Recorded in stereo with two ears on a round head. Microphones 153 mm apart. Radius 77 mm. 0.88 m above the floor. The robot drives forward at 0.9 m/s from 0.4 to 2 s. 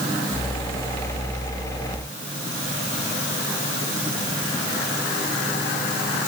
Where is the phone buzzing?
I don't hear a phone buzzing.